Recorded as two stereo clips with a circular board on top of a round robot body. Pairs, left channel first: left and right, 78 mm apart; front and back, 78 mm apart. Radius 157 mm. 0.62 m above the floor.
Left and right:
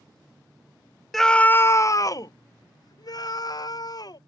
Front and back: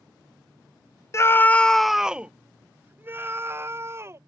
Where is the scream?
5° left; by 4.2 s 125° left.